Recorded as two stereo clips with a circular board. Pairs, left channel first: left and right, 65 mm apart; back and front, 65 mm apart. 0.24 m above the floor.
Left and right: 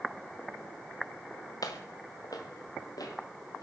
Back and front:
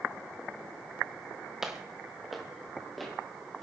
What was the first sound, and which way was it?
Footsteps, 85° left.